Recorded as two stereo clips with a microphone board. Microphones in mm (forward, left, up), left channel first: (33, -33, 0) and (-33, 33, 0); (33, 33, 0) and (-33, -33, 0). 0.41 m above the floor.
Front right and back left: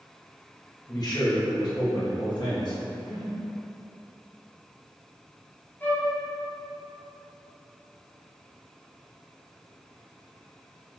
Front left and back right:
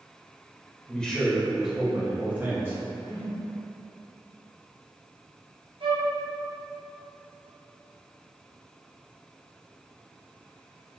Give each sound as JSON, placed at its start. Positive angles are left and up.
{"t": 0.9, "sound": "a man speaking", "azimuth_deg": -25, "distance_m": 1.0}
{"t": 3.0, "sound": "a whoosh", "azimuth_deg": 135, "distance_m": 1.9}
{"t": 5.8, "sound": "a flute", "azimuth_deg": -115, "distance_m": 1.5}